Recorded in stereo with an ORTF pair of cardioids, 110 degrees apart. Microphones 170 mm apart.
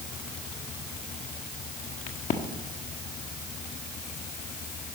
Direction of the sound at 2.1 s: 50° left.